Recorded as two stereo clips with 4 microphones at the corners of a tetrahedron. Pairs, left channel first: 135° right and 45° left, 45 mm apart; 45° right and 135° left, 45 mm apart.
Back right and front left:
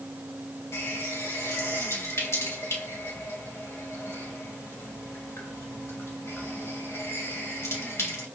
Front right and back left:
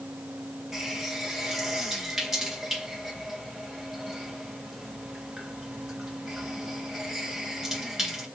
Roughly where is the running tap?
Behind right.